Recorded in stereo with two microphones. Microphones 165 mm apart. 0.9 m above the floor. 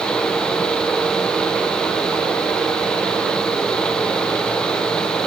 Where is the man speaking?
No man speaking in this recording.